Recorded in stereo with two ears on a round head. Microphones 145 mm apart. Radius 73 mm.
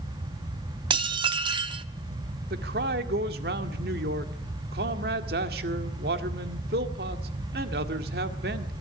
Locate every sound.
0.9 s dishes clattering: 30° right (ahead or behind), 0.9 m
2.5 s a man speaking: 65° right (ahead or behind), 1.8 m